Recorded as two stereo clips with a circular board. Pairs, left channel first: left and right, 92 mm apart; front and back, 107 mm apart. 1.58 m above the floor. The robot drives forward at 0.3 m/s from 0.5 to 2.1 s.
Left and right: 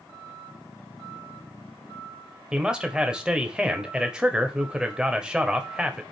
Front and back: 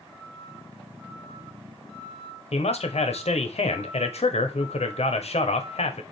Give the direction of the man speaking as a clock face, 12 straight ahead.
12 o'clock.